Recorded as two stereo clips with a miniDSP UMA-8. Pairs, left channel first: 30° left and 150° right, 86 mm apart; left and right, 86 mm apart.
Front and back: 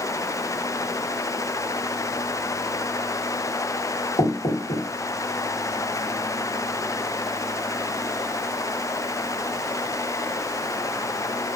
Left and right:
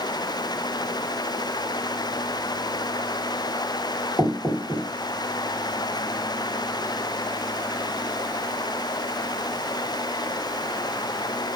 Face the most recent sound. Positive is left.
turn(degrees=25)